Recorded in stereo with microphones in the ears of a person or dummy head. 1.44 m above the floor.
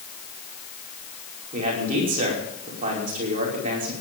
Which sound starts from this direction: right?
A man speaking, at 1.5 s.